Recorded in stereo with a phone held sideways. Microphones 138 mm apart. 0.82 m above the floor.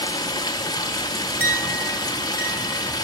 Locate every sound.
0.0 s running water: 30° left (ahead or behind), 1.2 m
1.4 s a clink: 15° right (ahead or behind), 6.5 m